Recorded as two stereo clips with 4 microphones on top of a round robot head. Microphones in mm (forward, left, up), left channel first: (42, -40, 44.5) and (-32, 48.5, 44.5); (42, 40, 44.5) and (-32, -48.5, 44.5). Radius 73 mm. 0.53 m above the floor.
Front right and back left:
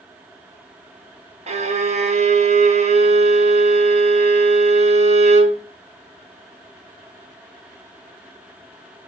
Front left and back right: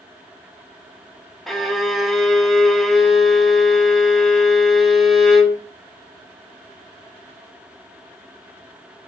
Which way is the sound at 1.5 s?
140° left.